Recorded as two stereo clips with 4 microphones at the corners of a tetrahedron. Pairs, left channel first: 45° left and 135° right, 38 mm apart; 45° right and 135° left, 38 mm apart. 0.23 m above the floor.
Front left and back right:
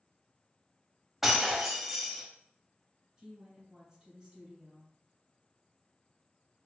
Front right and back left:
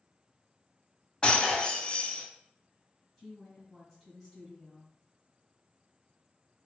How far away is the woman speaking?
About 1.6 m.